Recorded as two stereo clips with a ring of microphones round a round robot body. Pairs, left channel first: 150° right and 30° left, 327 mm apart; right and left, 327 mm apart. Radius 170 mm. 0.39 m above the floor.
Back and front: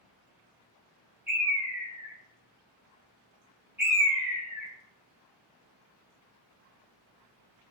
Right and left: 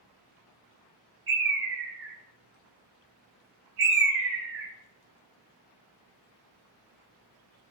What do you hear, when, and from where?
1.3 s a bird: 110° left, 1.4 m